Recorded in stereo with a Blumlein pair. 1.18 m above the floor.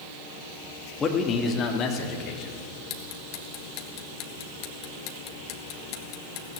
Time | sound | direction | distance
1.0 | a man speaking | 15° left | 2.5 m
2.9 | ticking | 40° left | 1.9 m